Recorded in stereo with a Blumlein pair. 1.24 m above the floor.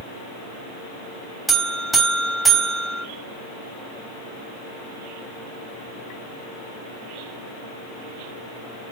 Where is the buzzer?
10° right, 3.5 m.